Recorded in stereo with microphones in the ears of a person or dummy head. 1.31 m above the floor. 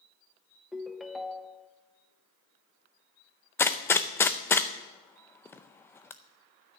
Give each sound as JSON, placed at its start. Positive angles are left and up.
{"t": 0.7, "sound": "a ringtone", "side_deg": 0, "distance_m": 0.5}
{"t": 3.6, "sound": "a gunshot", "side_deg": 15, "distance_m": 0.5}